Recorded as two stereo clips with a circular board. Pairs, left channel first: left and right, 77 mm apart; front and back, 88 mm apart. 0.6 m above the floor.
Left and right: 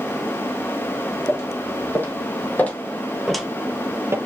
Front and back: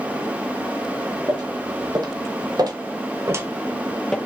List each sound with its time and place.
1.3 s footsteps: 145° left, 1.8 m; by 4.2 s 75° right, 0.6 m